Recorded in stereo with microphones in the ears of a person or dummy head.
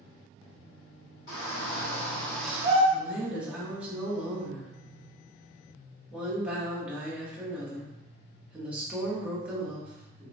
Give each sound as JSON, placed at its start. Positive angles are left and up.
{"t": 1.3, "sound": "a shout", "side_deg": 65, "distance_m": 1.7}
{"t": 2.9, "sound": "a woman speaking", "side_deg": -5, "distance_m": 0.7}